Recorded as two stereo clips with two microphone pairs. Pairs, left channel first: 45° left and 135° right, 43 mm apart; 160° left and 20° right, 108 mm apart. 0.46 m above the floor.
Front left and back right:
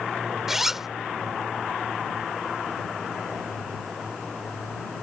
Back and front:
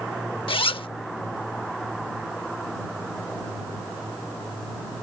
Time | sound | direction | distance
0.5 | a zipper | 145° left | ?